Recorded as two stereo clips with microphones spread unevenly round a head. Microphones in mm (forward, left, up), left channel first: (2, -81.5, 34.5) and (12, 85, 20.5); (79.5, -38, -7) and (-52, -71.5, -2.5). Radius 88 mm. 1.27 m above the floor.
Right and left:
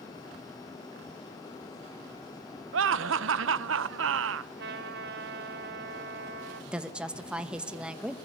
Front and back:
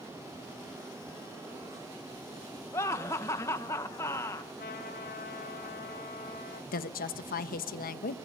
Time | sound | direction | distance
2.7 | laughter | 90° left | 0.8 m
4.6 | a trumpet | 60° left | 4 m
6.7 | a woman speaking | straight ahead | 1.2 m